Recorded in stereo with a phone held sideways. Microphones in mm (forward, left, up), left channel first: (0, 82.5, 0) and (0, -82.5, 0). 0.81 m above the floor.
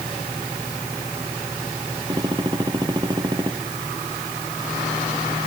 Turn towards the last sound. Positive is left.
turn(degrees=-25)  # may be behind; listen again after turning